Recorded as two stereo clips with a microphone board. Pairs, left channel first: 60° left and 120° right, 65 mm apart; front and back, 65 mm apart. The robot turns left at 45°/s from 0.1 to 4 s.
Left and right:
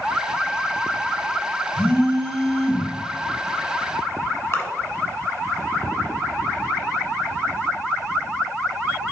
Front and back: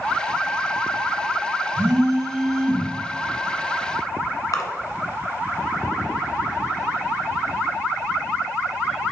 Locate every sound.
1.8 s a phone buzzing: 120° left, 3.5 m; by 2.9 s 70° left, 3.5 m
4.5 s a splash: 15° left, 1.2 m